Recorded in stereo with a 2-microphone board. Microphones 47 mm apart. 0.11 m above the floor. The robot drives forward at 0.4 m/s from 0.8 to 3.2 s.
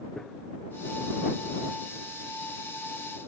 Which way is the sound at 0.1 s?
10° left (ahead or behind).